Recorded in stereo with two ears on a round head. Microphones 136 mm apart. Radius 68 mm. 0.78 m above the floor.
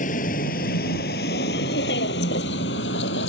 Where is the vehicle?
55° left (ahead or behind); by 3.3 s 85° left.